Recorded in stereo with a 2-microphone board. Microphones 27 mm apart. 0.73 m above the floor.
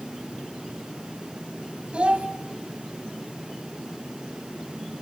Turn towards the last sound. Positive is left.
turn(degrees=-45)  # may be behind; listen again after turning